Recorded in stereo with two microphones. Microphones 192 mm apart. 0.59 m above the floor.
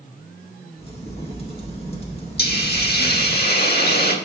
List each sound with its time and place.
0.8 s a crack: 30° left (ahead or behind), 1.4 m
2.4 s a hiss: 55° left (ahead or behind), 1.1 m